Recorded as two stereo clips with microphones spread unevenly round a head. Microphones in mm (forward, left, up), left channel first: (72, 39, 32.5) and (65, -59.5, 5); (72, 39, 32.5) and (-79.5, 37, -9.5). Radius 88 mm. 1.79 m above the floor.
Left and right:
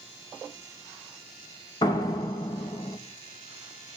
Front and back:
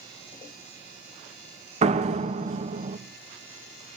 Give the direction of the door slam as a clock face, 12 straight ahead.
8 o'clock.